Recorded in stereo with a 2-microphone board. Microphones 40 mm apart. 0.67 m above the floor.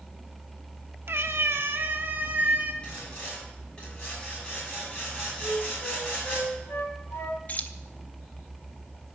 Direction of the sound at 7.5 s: 35° left (ahead or behind).